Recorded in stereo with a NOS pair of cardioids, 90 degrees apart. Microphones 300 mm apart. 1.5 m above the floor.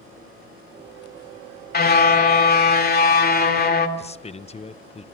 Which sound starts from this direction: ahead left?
A car horn, at 1.7 s.